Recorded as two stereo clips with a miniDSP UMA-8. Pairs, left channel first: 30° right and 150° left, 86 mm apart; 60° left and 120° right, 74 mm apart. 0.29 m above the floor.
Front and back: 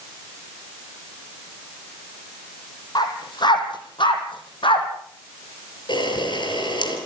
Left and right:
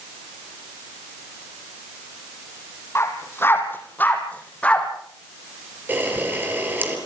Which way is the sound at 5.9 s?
60° right.